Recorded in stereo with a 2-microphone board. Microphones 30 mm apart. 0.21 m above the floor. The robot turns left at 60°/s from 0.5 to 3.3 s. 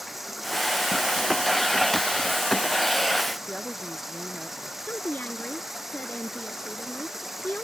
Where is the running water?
5° right; by 7.7 s 170° right.